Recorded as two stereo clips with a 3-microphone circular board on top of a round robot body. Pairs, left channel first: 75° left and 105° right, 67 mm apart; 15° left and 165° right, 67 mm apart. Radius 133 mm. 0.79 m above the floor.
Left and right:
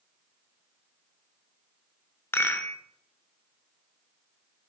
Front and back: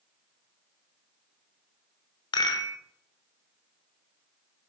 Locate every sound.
2.3 s a rattle: 20° left, 1.1 m